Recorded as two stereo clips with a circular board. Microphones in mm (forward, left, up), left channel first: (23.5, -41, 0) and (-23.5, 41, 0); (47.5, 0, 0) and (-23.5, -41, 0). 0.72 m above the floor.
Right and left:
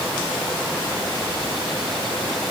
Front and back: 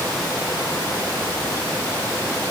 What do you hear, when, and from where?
Only background noise.